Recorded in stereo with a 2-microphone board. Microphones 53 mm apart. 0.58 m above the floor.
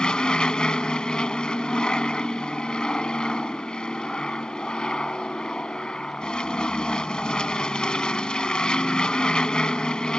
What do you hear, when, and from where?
0.0 s an aircraft: 15° left (ahead or behind)